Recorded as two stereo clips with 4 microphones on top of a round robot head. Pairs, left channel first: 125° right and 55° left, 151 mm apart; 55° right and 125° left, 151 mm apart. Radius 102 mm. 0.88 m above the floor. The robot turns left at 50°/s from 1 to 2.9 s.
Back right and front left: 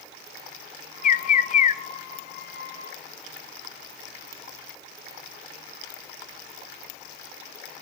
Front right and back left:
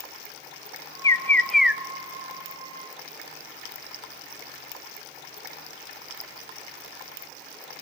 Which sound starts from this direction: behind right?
A bird, at 1.0 s.